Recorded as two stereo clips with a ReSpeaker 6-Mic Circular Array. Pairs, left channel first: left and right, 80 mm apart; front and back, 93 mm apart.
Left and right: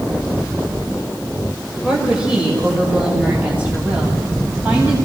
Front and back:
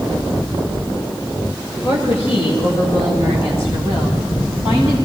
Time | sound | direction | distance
1.8 | a woman speaking | 10° right | 6.5 m